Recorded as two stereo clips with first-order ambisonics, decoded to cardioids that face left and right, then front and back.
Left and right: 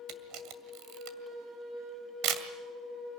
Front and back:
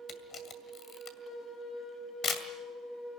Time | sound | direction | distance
0.1 | a camera shutter | 60° right | 2 m